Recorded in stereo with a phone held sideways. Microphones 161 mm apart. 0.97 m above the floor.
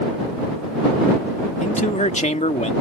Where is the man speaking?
50° left (ahead or behind).